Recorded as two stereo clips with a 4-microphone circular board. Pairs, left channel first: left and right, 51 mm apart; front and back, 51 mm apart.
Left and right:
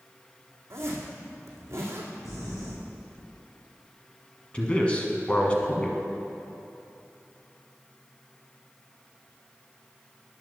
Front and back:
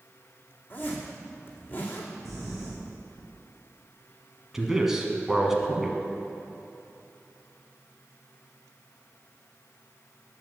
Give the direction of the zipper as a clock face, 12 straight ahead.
2 o'clock.